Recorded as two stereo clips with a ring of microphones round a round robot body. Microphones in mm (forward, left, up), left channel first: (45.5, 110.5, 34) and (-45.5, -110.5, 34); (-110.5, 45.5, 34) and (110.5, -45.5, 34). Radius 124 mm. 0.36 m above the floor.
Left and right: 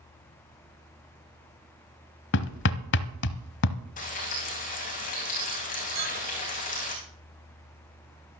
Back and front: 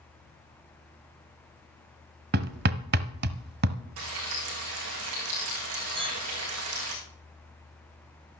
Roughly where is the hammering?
Ahead left.